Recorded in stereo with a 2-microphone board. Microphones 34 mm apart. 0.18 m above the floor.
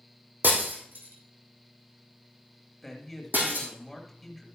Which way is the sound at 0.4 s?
70° right (ahead or behind).